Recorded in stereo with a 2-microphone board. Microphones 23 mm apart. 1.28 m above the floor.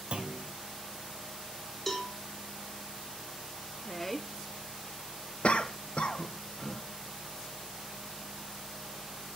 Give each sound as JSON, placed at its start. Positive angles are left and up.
{"t": 0.1, "sound": "a clunk", "side_deg": -45, "distance_m": 1.7}
{"t": 1.9, "sound": "a cowbell", "side_deg": 15, "distance_m": 1.8}
{"t": 3.8, "sound": "a woman speaking", "side_deg": 10, "distance_m": 0.7}
{"t": 5.4, "sound": "a cough", "side_deg": 50, "distance_m": 1.0}